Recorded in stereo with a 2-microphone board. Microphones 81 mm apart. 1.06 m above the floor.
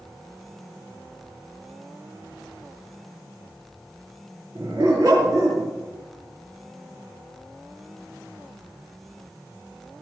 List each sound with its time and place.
4.5 s a dog barking: 35° right (ahead or behind), 7 m